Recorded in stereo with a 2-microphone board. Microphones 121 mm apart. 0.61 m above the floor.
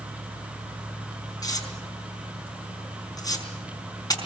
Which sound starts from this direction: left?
Tearing paper, at 1.4 s.